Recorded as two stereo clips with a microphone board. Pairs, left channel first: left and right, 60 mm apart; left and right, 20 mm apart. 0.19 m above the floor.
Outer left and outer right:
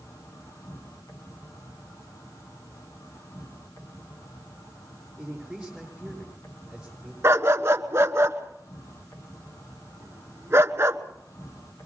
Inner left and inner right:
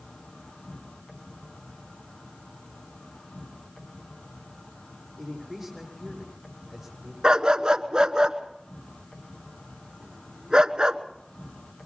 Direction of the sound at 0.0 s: 65° left (ahead or behind).